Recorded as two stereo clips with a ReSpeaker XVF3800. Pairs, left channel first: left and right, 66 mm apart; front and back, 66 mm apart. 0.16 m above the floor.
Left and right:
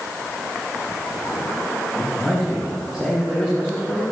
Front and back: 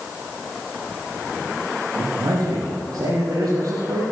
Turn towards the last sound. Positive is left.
turn(degrees=150)